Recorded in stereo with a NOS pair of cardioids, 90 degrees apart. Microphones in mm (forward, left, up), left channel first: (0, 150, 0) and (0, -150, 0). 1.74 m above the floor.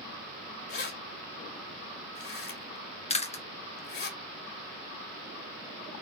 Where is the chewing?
20° left, 1.2 m.